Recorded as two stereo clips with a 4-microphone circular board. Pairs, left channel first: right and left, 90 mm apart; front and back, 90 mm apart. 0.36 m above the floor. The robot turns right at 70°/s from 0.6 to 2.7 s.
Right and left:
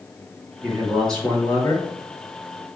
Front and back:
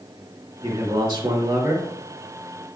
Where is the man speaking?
155° left, 2.5 m; by 1.9 s 120° right, 2.5 m.